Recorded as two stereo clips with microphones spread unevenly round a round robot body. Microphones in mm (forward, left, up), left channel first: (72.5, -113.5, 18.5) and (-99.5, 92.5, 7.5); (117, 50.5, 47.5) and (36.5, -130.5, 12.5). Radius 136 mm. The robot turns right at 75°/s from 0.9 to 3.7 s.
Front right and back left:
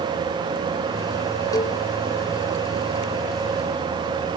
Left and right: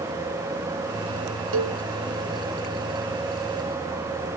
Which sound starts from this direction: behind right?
A cowbell, at 1.5 s.